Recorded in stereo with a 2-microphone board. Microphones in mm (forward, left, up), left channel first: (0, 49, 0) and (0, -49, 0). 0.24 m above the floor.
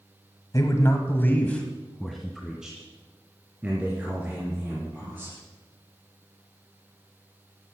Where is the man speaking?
35° left (ahead or behind), 1.4 m; by 5.4 s 20° right (ahead or behind), 4.5 m.